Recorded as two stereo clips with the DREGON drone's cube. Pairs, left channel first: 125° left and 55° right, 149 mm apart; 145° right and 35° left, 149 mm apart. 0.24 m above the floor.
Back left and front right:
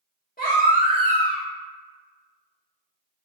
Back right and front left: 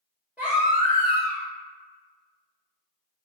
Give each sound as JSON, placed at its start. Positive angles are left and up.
{"t": 0.4, "sound": "a baby crying", "azimuth_deg": 115, "distance_m": 1.8}